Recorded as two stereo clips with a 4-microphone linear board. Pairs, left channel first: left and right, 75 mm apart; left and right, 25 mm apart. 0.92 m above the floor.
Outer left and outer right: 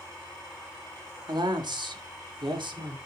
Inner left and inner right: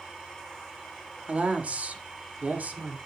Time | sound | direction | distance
1.3 | a woman speaking | 60° right (ahead or behind) | 1.6 m